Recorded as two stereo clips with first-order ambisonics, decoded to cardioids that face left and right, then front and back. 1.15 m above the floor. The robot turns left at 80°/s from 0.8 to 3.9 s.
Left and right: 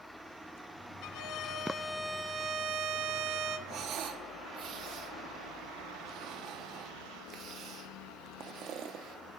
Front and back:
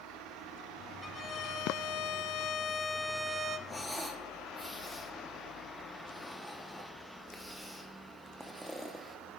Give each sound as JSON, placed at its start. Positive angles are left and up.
{"t": 1.0, "sound": "a violin", "azimuth_deg": 80, "distance_m": 0.5}
{"t": 3.7, "sound": "breathing", "azimuth_deg": -75, "distance_m": 0.7}